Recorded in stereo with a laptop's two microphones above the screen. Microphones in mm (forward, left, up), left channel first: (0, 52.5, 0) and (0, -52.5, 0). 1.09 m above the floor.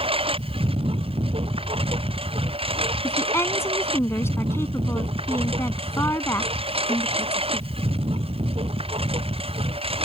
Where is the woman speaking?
25° left (ahead or behind).